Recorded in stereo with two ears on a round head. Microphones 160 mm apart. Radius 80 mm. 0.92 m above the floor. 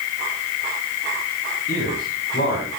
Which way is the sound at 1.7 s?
50° left (ahead or behind).